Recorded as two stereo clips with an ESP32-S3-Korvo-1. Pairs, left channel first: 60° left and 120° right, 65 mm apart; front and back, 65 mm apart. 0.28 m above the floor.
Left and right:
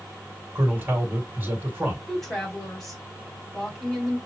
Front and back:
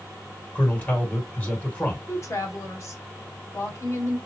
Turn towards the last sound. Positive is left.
turn(degrees=-25)